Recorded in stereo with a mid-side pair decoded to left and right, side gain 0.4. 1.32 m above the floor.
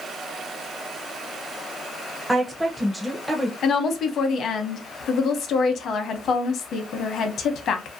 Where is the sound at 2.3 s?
5° right, 0.6 m.